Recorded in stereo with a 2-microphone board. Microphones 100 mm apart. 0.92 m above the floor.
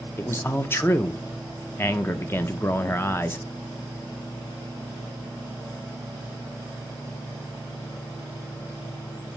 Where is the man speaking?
25° left (ahead or behind), 0.5 m.